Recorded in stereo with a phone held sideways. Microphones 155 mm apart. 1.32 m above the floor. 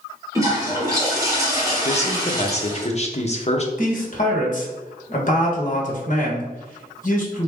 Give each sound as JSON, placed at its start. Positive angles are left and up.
{"t": 0.3, "sound": "a toilet flushing", "side_deg": -20, "distance_m": 1.5}
{"t": 1.9, "sound": "a man speaking", "side_deg": 45, "distance_m": 0.7}
{"t": 3.8, "sound": "a man speaking", "side_deg": 55, "distance_m": 1.1}